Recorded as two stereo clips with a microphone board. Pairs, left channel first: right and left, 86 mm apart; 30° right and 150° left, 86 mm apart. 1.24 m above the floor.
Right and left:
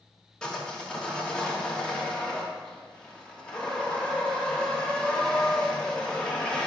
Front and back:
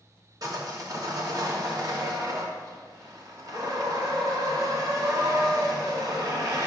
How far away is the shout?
I don't hear a shout.